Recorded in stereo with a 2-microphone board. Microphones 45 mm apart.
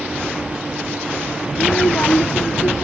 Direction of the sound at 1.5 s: 45° left (ahead or behind).